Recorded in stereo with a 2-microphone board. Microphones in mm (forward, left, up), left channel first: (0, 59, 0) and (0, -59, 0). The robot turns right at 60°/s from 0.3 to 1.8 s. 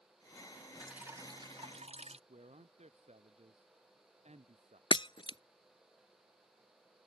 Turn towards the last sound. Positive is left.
turn(degrees=45)  # may be behind; listen again after turning